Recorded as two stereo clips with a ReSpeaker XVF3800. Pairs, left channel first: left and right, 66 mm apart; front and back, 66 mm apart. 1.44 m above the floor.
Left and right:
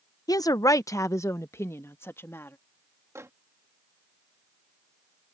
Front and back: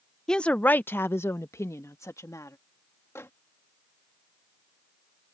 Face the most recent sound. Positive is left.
turn(degrees=-45)